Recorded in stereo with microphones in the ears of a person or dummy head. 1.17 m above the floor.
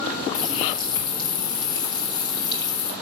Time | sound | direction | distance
0.3 | a running tap | 20° left (ahead or behind) | 1.5 m